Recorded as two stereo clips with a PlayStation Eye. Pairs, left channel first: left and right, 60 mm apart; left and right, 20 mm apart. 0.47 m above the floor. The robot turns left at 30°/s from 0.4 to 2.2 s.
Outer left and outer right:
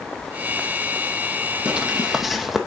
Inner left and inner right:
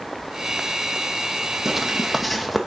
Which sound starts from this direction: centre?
Footsteps, at 1.6 s.